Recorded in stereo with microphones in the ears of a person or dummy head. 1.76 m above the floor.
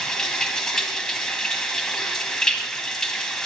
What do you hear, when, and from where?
0.0 s running water: centre (ahead or behind), 1.8 m